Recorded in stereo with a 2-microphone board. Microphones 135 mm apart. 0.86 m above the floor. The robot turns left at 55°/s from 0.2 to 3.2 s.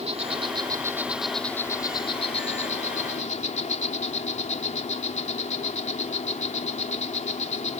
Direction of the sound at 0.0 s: 120° right.